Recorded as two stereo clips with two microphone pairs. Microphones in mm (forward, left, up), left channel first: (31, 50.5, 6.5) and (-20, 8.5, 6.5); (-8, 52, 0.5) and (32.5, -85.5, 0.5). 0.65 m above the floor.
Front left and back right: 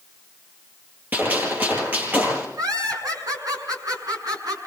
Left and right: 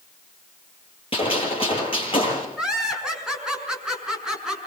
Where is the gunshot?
160° left, 9 m.